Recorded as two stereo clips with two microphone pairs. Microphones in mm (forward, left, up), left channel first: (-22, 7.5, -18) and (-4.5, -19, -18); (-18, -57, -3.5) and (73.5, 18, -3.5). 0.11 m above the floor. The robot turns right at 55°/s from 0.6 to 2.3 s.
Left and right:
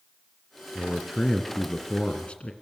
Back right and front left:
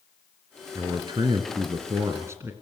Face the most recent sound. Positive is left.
turn(degrees=90)